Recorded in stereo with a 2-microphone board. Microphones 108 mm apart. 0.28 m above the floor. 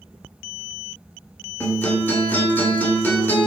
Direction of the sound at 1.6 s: 20° left (ahead or behind).